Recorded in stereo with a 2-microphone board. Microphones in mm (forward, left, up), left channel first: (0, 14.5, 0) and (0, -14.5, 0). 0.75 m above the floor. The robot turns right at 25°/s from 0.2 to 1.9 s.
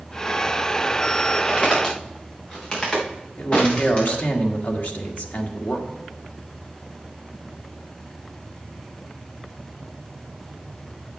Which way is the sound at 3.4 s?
65° left (ahead or behind).